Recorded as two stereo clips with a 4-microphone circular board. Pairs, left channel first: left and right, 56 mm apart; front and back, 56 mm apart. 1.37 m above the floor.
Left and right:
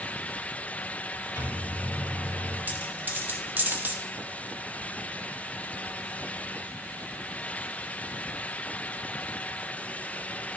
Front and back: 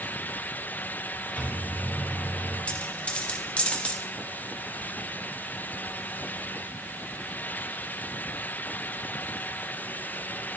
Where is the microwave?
60° left, 2.5 m.